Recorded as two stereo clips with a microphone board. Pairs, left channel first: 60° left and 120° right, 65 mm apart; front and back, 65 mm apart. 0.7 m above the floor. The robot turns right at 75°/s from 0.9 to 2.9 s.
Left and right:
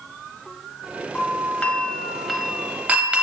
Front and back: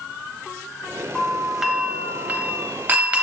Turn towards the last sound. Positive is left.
turn(degrees=-165)